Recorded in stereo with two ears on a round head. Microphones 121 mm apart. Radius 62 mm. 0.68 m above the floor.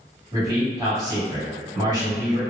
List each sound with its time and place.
0.3 s a man speaking: 30° right (ahead or behind), 1.7 m